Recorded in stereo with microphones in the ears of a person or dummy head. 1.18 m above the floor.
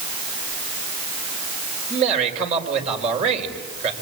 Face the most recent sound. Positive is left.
turn(degrees=-35)  # may be behind; listen again after turning